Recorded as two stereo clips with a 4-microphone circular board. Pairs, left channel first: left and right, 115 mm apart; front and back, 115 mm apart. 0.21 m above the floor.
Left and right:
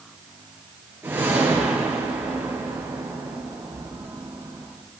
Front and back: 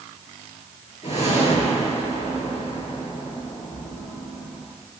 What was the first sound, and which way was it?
A whoosh, 20° right.